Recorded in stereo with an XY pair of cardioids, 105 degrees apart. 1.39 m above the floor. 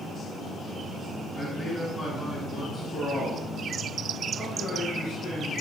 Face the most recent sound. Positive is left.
turn(degrees=70)